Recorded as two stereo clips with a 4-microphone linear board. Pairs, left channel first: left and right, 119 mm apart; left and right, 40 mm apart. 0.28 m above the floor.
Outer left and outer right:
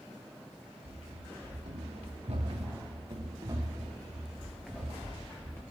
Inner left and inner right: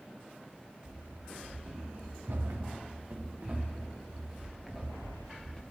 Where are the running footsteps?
85° right, 3.5 m; by 5.6 s 20° left (ahead or behind), 3 m.